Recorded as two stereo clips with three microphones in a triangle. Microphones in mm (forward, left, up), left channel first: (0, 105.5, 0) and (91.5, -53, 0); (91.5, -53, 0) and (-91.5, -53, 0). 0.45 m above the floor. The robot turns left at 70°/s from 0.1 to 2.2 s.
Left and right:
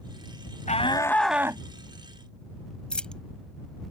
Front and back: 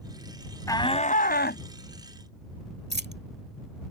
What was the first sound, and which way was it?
A shout, 70° left.